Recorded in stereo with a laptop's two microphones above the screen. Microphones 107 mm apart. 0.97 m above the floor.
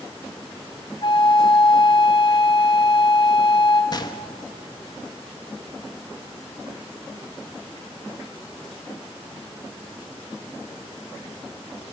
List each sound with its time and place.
1.0 s a flute: 50° left (ahead or behind), 3.5 m
3.9 s a gunshot: 40° left (ahead or behind), 1.5 m